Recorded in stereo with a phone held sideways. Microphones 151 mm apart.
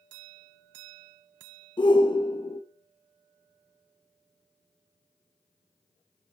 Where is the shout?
35° left (ahead or behind), 1.0 m.